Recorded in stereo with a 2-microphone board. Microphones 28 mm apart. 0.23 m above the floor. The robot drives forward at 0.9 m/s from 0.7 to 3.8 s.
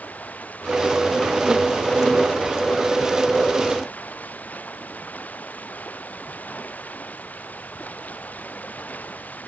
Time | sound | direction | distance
0.0 | running water | 75° left (ahead or behind) | ?